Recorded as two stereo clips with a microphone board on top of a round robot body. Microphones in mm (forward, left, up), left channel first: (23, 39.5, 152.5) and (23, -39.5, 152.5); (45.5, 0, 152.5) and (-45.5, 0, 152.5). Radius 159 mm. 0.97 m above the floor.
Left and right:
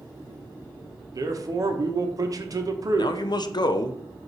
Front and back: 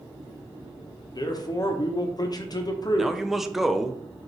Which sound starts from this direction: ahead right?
A man speaking, at 1.1 s.